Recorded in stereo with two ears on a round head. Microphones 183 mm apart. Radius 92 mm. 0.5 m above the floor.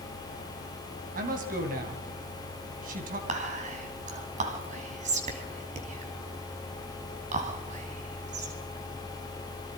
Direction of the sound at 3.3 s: 35° right (ahead or behind).